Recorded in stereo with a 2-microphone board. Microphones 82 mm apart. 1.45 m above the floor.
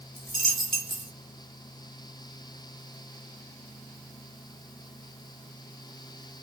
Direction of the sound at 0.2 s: Centre (ahead or behind).